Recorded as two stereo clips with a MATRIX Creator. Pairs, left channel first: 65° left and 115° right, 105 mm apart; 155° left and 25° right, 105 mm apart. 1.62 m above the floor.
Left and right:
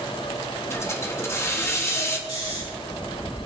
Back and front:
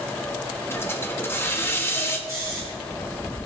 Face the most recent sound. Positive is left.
turn(degrees=40)